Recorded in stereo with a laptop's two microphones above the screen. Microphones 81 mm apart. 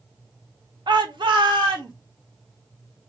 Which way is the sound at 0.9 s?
65° right (ahead or behind).